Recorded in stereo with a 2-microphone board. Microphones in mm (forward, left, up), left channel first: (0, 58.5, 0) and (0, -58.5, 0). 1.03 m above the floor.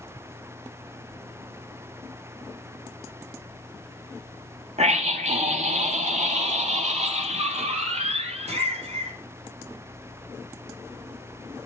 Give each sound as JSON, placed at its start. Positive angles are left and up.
{"t": 4.8, "sound": "a scream", "side_deg": -70, "distance_m": 2.0}